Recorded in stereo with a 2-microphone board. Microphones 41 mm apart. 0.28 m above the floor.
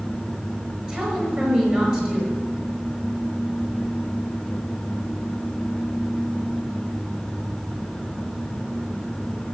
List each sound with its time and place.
0.9 s a woman speaking: 25° right (ahead or behind), 5.5 m